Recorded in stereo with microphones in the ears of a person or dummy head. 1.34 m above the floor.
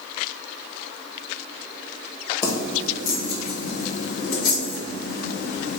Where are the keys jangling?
15° left (ahead or behind), 0.8 m; by 5.8 s 75° left (ahead or behind), 2.5 m.